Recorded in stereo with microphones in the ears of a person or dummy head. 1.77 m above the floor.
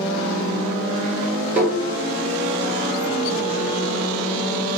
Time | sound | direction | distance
1.6 | tapping | 10° right (ahead or behind) | 1.7 m